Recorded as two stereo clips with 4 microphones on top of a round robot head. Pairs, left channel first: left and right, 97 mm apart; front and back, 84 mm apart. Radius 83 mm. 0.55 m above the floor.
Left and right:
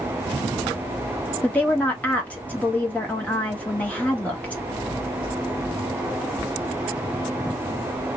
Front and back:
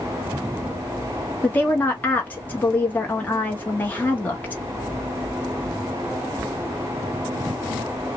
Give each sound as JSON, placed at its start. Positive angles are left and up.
{"t": 1.4, "sound": "a woman speaking", "azimuth_deg": 35, "distance_m": 0.9}